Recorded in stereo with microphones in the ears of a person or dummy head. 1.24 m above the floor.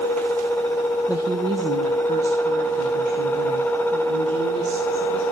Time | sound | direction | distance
1.1 | a woman speaking | 10° right (ahead or behind) | 0.6 m